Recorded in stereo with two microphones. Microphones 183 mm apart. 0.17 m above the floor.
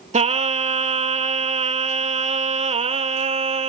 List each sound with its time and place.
0.1 s singing: 40° right (ahead or behind), 0.6 m